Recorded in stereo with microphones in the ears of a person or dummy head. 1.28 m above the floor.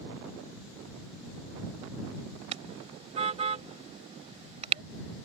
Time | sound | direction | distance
2.5 | a car horn | 40° right (ahead or behind) | ?